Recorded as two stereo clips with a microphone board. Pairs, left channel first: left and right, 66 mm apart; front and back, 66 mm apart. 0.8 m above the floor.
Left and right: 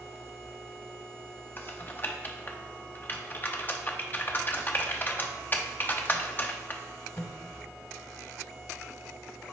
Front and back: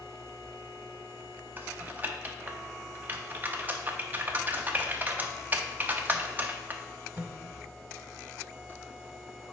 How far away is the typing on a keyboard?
About 0.6 m.